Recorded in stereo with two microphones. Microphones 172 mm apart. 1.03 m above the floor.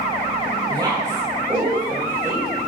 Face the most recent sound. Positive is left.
turn(degrees=-10)  # may be behind; listen again after turning